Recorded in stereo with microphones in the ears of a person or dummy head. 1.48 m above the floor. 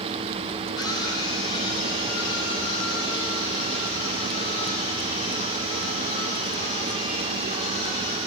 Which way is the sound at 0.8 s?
25° left (ahead or behind).